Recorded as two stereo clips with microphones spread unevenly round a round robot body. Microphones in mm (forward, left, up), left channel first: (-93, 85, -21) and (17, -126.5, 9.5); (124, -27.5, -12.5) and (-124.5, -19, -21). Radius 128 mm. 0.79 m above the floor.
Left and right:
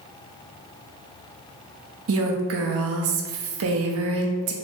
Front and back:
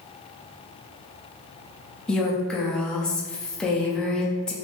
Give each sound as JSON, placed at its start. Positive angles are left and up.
{"t": 2.1, "sound": "a woman speaking", "azimuth_deg": -90, "distance_m": 0.6}